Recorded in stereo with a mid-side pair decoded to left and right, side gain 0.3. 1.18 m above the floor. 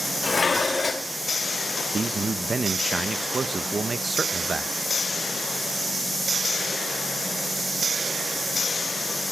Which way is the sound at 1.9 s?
45° right.